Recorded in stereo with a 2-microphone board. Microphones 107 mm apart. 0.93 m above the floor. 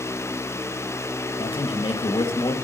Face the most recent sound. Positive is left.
turn(degrees=50)  # may be behind; listen again after turning